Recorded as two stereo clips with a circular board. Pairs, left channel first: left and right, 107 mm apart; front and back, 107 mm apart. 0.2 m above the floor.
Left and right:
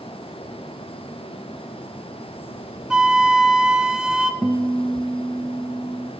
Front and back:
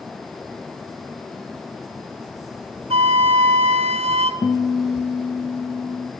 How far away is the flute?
About 0.7 m.